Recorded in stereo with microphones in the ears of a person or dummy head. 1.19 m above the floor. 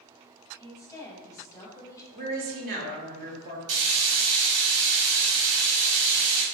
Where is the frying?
70° right (ahead or behind), 0.9 m.